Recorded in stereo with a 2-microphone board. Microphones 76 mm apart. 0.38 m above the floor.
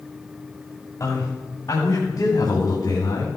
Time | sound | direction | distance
1.0 | a man speaking | 55° left (ahead or behind) | 2.5 m